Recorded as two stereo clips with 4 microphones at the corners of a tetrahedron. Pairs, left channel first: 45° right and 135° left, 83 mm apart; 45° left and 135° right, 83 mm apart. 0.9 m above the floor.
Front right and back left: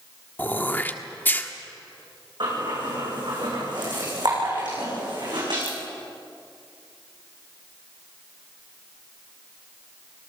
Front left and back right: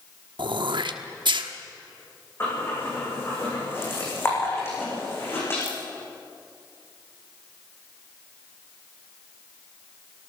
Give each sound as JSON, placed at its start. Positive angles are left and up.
{"t": 0.4, "sound": "throat clearing", "azimuth_deg": -115, "distance_m": 1.2}
{"t": 2.4, "sound": "breathing", "azimuth_deg": 105, "distance_m": 9.5}